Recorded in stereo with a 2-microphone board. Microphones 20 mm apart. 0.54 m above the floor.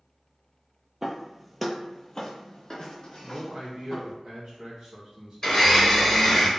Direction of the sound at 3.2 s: 30° right (ahead or behind).